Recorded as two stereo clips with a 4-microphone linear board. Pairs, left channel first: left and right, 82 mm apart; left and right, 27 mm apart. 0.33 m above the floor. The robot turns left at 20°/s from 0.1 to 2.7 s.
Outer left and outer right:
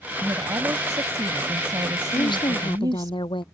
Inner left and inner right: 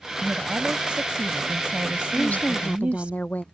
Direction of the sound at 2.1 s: 65° left (ahead or behind).